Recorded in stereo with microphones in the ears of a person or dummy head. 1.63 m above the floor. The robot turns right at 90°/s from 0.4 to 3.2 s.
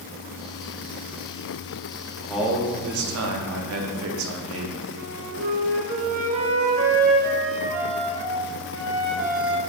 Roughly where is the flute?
Right.